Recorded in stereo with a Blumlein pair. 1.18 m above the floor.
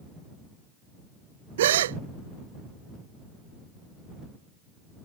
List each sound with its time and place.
1.6 s a gasp: 60° right